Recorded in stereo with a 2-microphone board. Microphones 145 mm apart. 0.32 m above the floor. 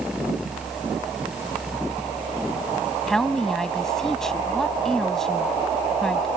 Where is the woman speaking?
5° left (ahead or behind).